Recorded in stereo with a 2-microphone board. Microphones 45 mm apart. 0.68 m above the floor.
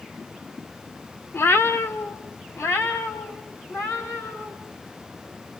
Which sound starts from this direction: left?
A cat meowing, at 1.3 s.